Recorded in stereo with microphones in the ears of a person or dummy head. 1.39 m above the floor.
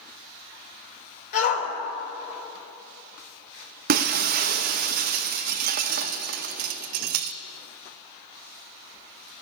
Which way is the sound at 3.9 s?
45° right (ahead or behind).